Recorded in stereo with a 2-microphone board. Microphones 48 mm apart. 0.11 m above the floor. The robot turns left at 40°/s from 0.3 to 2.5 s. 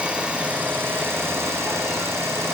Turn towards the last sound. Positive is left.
turn(degrees=-115)